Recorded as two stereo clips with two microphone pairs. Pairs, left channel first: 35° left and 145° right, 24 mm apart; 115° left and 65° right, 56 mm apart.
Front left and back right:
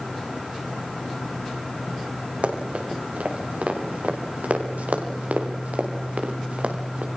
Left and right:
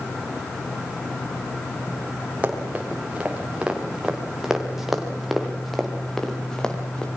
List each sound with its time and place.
2.4 s running footsteps: 130° right, 6 m; by 7.1 s 175° right, 4.5 m